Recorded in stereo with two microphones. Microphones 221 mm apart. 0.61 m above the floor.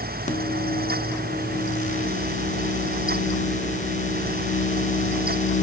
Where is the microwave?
35° left (ahead or behind), 1.0 m.